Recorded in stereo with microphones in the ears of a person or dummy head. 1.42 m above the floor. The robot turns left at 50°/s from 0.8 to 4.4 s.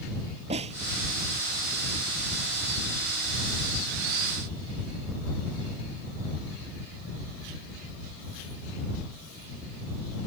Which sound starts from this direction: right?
A snare drum, at 0.5 s.